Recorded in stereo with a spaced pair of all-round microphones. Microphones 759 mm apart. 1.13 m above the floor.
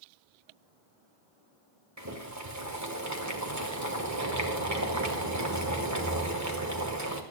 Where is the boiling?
20° right (ahead or behind), 1.4 m.